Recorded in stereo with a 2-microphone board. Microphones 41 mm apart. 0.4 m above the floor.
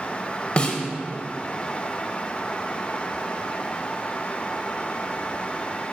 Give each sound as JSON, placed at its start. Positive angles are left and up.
{"t": 0.6, "sound": "a snare drum", "side_deg": 35, "distance_m": 1.2}